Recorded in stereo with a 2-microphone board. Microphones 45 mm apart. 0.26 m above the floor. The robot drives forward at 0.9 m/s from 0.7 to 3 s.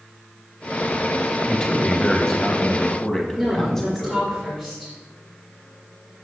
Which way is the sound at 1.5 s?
20° left (ahead or behind).